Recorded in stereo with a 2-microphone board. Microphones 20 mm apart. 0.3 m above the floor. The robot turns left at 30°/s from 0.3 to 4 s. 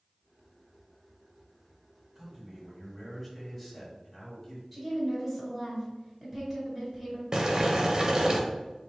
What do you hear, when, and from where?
2.1 s a man speaking: 140° right, 1.8 m; by 4.6 s 165° left, 1.8 m
4.7 s a woman speaking: centre (ahead or behind), 1.5 m
7.3 s boiling: 35° right (ahead or behind), 0.7 m